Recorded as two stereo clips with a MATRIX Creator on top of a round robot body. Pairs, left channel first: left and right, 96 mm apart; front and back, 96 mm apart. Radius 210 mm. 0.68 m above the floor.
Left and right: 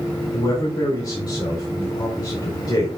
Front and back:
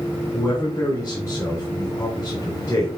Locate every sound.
0.3 s a man speaking: 55° left, 4 m